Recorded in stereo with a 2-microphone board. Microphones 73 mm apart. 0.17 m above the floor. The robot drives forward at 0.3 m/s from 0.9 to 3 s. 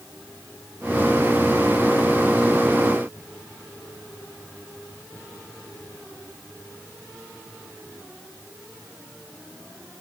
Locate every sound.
Only background noise.